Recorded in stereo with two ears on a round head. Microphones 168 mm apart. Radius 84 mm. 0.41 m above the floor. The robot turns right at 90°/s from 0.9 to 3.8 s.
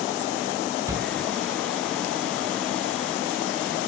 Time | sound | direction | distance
0.9 | a shout | 15° right (ahead or behind) | 0.8 m